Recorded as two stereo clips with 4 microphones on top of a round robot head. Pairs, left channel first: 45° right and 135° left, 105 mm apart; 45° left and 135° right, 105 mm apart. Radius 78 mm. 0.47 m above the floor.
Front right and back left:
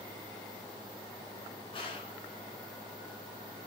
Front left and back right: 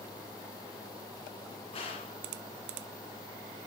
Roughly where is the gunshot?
Ahead.